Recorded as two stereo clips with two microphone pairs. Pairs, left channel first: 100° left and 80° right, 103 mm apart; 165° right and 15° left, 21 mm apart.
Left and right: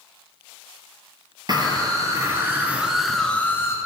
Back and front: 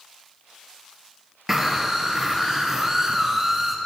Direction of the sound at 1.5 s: 45° right.